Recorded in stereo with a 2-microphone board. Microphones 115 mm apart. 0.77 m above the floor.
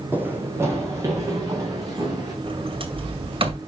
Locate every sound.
0.1 s running footsteps: 15° right (ahead or behind), 2.5 m; by 2.3 s 35° right (ahead or behind), 5 m
2.4 s a sliding door: 50° right (ahead or behind), 2 m